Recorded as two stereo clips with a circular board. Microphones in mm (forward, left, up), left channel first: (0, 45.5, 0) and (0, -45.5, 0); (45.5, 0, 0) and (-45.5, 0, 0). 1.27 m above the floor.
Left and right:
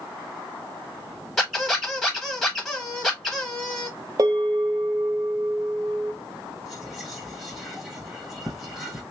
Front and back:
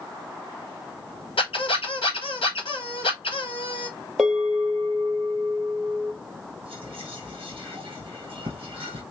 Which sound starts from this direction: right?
A bell, at 4.2 s.